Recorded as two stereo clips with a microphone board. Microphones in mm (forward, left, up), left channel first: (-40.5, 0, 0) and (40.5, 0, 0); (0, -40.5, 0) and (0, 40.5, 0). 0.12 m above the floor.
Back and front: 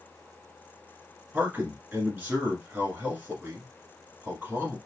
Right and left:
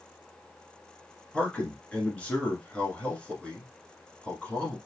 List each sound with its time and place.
1.3 s a man speaking: 35° right, 1.4 m